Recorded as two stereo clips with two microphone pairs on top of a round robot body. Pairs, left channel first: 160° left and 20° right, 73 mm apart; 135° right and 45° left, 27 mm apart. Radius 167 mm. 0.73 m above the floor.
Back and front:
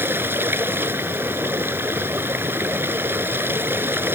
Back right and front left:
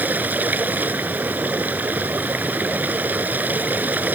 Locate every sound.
0.0 s running water: 35° left